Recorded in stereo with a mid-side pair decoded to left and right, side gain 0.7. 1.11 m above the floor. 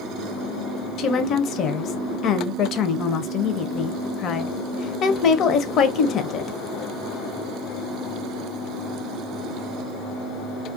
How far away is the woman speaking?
About 0.6 m.